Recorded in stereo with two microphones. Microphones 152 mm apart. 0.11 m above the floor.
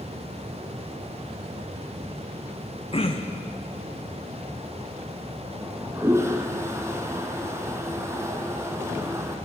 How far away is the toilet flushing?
About 2 m.